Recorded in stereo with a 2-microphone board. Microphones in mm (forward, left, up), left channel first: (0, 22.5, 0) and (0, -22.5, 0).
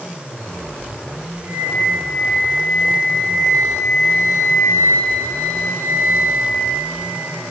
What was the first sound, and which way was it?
A flute, 80° right.